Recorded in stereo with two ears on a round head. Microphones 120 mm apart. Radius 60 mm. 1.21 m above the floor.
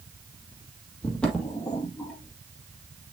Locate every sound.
1.0 s footsteps: 5° left (ahead or behind), 1.9 m; by 2.4 s 10° left (ahead or behind), 1.4 m